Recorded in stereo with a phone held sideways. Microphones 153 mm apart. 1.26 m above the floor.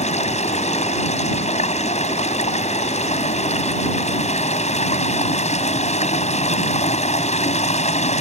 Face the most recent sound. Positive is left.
turn(degrees=50)  # may be behind; listen again after turning